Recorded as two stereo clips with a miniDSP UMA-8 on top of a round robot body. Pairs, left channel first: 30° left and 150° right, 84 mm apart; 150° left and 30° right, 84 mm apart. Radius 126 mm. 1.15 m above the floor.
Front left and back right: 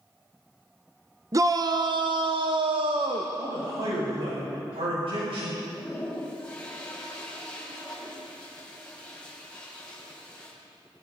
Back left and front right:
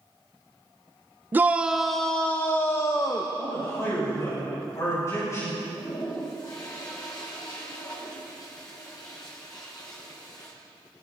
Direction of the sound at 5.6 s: 105° left.